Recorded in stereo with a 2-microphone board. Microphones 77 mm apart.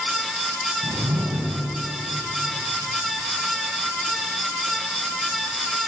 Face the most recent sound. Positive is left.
turn(degrees=-50)  # may be behind; listen again after turning